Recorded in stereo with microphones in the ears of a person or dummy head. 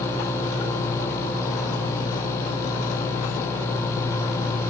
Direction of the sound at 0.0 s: 60° left (ahead or behind).